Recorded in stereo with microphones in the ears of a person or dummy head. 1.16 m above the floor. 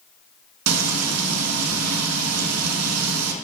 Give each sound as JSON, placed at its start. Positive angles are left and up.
{"t": 0.7, "sound": "frying", "side_deg": -85, "distance_m": 1.5}